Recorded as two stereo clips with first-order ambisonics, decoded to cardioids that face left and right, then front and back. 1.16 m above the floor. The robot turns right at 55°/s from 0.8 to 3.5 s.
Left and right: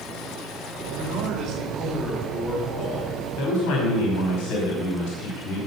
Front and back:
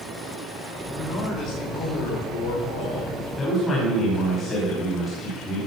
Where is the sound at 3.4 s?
65° left, 5 m; by 5.6 s 70° left, 5 m.